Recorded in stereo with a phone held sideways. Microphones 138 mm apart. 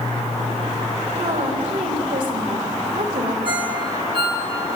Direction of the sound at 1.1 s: 80° right.